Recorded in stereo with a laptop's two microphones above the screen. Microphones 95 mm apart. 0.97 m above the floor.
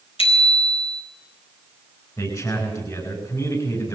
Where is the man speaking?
35° left (ahead or behind), 10 m.